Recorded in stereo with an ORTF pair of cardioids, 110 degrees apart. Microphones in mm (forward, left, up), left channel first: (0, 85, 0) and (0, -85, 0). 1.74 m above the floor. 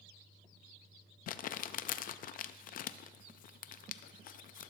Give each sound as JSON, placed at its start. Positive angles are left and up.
{"t": 1.3, "sound": "crumpling", "azimuth_deg": 55, "distance_m": 0.5}